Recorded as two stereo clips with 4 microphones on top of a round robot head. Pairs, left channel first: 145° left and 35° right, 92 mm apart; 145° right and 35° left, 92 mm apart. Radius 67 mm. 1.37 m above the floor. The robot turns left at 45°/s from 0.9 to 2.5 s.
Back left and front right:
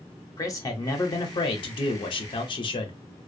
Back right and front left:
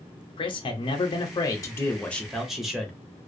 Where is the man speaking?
165° right, 0.5 m; by 3.0 s 125° left, 0.5 m.